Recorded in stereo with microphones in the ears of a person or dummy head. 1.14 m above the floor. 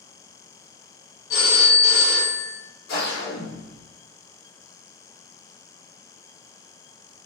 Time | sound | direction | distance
1.3 | a phone ringing | 60° left (ahead or behind) | 0.8 m
2.9 | a whoosh | 65° left (ahead or behind) | 0.8 m